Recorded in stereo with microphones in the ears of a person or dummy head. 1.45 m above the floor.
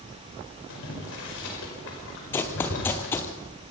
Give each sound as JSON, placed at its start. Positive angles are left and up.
{"t": 0.7, "sound": "boiling", "side_deg": 80, "distance_m": 5.0}
{"t": 2.3, "sound": "running footsteps", "side_deg": 15, "distance_m": 1.6}